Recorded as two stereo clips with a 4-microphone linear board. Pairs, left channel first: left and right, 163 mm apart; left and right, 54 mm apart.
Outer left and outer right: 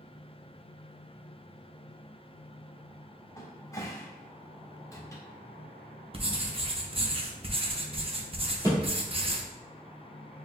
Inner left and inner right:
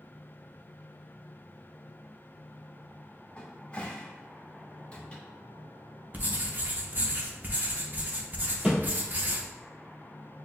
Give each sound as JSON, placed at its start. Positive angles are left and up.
{"t": 3.4, "sound": "a cupboard door", "side_deg": 20, "distance_m": 0.7}
{"t": 6.1, "sound": "writing", "side_deg": -35, "distance_m": 0.6}
{"t": 8.6, "sound": "a thud", "side_deg": -20, "distance_m": 1.8}